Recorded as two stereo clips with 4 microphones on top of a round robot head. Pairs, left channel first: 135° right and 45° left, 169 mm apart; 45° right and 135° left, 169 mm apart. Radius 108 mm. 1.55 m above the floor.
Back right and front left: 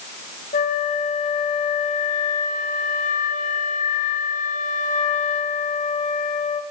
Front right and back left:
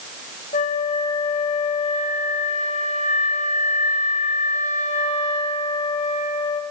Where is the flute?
90° right, 1.1 m.